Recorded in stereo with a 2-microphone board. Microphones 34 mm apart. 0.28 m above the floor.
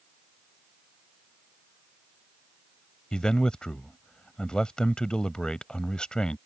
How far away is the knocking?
I don't hear knocking.